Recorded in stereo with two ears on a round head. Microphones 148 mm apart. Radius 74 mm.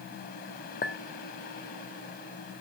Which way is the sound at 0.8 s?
55° left (ahead or behind).